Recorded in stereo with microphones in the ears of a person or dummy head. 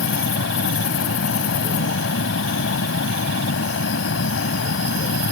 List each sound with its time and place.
0.0 s a fan: 65° left (ahead or behind)